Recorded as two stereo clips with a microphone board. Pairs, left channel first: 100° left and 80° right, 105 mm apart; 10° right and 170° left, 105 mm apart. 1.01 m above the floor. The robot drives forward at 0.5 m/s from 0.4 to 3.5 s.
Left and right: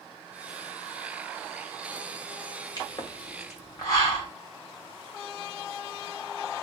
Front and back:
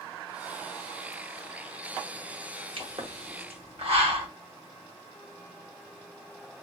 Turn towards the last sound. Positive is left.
turn(degrees=155)